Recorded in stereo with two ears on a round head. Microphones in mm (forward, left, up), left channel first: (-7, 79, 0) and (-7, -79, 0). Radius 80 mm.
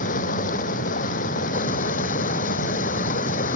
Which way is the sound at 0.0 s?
50° left (ahead or behind).